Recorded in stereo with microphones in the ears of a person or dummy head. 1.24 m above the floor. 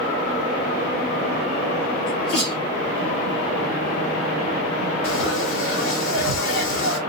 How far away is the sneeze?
About 1.9 m.